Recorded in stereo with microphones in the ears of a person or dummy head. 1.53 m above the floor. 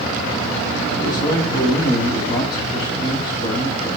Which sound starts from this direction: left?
A man speaking, at 0.9 s.